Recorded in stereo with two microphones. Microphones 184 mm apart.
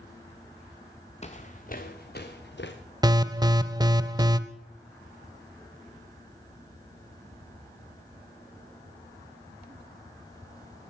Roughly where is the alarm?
Right.